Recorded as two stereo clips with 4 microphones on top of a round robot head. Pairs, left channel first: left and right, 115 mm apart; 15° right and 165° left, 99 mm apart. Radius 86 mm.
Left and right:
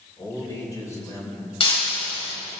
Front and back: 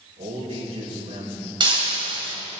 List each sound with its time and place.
0.2 s a man speaking: 150° left, 6 m
1.6 s breaking glass: 130° left, 3.5 m